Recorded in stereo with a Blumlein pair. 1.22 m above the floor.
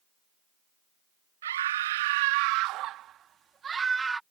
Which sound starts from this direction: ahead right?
A scream, at 1.4 s.